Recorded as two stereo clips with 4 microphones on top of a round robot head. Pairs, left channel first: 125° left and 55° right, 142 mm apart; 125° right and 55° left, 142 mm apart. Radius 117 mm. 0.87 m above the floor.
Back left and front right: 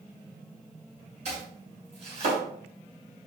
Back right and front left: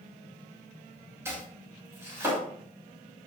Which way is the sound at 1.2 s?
15° right.